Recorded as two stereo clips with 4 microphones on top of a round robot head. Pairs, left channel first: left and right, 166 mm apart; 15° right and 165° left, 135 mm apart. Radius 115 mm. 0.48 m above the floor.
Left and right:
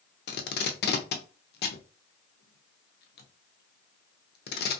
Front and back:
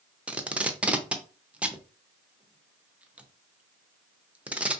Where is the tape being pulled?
85° left, 0.6 m.